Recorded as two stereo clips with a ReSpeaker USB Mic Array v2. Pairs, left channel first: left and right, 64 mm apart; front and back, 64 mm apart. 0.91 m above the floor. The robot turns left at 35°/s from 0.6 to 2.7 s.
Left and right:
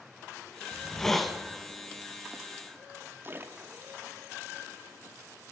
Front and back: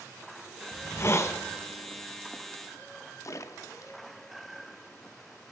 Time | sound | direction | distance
0.7 | a hiss | 20° left | 0.8 m
3.2 | a splash | 35° right | 0.7 m